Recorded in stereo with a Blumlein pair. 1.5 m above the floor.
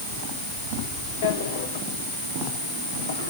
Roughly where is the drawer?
Ahead left.